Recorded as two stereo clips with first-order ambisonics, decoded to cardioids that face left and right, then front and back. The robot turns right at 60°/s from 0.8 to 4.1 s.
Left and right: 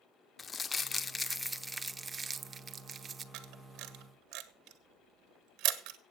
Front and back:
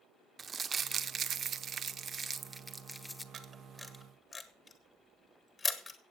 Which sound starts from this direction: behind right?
A camera shutter, at 3.3 s.